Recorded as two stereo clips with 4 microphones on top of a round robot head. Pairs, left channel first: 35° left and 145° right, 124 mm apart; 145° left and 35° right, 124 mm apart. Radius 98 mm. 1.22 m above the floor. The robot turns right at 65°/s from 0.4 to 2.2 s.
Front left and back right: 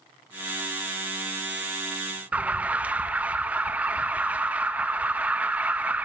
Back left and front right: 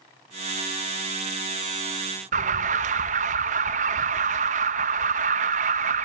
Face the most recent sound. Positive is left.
turn(degrees=-65)